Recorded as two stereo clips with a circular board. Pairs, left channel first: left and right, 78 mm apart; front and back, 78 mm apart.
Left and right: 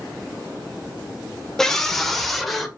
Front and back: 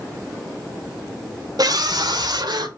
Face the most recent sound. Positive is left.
turn(degrees=180)